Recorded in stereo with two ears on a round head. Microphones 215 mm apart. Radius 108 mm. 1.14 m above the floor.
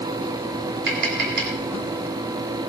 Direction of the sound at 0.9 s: 40° right (ahead or behind).